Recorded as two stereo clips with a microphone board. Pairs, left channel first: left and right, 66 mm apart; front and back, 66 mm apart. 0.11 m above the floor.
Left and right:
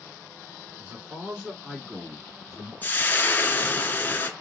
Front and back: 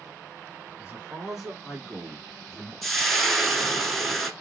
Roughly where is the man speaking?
Behind right.